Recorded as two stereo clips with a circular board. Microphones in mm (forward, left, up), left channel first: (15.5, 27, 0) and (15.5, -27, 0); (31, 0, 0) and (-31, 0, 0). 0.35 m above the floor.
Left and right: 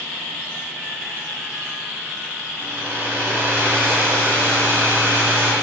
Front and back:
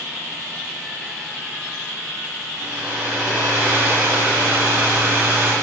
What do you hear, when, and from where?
2.6 s a hair dryer: 130° right, 4 m